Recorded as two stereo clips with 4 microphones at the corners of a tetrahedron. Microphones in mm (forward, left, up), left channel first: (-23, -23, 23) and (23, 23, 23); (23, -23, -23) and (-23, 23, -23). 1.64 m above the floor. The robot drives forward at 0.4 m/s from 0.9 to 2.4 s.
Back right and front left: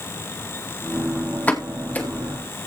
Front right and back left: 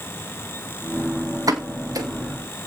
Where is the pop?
160° left, 2.0 m.